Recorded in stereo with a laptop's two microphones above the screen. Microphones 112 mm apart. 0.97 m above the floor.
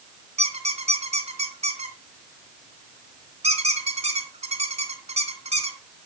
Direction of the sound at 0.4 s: 80° right.